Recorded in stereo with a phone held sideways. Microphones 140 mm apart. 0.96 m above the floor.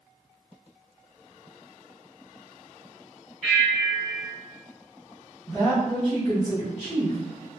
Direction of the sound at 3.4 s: Centre (ahead or behind).